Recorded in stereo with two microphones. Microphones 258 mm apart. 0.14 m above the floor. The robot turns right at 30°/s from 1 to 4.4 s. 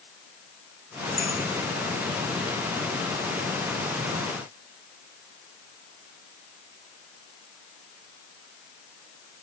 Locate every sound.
1.2 s a clink: 70° right (ahead or behind), 6.5 m